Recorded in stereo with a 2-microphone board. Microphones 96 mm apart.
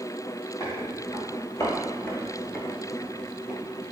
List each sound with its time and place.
0.6 s footsteps: 40° left (ahead or behind), 1.5 m; by 3.8 s 15° right (ahead or behind), 1.0 m